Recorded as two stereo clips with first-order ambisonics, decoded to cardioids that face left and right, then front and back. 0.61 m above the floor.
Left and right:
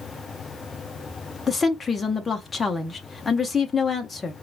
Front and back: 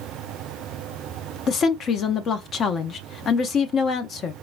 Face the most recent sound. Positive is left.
turn(degrees=25)